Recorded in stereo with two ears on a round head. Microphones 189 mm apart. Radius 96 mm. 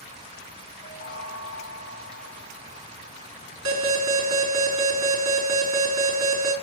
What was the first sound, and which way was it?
A chime, 60° left (ahead or behind).